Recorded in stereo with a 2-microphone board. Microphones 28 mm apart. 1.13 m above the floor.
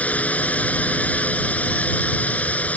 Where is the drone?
55° left (ahead or behind).